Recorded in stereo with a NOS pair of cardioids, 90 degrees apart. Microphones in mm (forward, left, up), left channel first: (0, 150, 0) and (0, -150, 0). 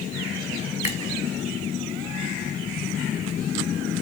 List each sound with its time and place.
0.8 s a finger snap: 20° left, 4 m